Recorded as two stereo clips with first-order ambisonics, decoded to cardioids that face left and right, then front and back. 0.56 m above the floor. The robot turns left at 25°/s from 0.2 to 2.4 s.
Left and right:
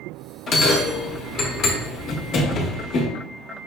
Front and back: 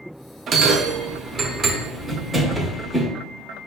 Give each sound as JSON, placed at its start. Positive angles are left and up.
{"t": 0.5, "sound": "a bell", "azimuth_deg": 140, "distance_m": 0.7}